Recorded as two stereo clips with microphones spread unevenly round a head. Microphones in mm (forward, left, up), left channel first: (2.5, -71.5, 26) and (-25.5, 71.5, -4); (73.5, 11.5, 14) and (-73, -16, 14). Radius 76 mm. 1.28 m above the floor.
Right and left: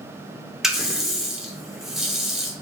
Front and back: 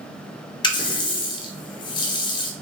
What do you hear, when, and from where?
0.6 s a running tap: 5° right, 0.5 m